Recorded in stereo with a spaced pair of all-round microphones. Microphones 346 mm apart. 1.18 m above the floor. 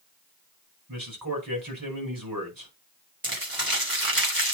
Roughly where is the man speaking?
Right.